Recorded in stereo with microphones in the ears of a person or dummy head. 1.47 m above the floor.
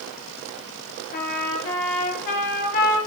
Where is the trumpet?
40° left (ahead or behind), 1.5 m.